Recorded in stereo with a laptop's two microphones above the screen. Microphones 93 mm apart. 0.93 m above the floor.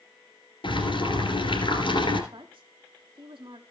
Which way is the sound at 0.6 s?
70° left (ahead or behind).